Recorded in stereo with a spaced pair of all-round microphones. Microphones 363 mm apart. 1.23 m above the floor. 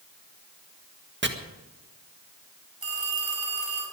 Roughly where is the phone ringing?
Right.